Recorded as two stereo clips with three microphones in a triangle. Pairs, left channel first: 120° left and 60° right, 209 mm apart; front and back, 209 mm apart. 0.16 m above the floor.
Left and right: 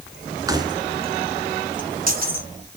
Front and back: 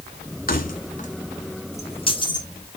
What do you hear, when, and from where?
0.5 s keys jangling: 5° left, 1.4 m; by 2.5 s 60° right, 1.5 m